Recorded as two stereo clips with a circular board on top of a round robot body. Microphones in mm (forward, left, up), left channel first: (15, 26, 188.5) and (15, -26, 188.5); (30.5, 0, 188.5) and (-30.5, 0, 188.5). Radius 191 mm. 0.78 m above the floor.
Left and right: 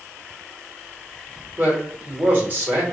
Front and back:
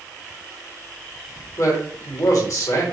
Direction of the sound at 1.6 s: 30° right.